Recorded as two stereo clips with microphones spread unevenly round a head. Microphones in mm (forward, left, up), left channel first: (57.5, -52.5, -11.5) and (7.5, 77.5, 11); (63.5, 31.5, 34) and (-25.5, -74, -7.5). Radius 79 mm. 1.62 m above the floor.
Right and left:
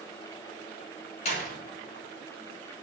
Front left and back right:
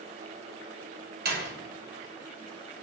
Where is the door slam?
120° right, 6 m.